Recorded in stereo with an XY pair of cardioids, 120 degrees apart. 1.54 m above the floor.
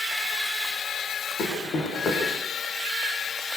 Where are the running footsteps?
50° left, 7.5 m.